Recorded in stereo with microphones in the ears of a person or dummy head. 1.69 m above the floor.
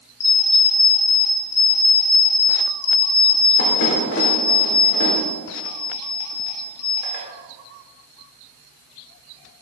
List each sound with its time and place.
0.2 s an alarm clock: 55° left (ahead or behind), 3.5 m